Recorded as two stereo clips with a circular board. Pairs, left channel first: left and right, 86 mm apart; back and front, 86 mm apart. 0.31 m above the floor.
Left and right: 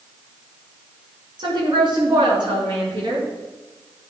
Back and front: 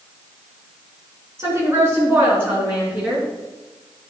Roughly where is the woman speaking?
Ahead right.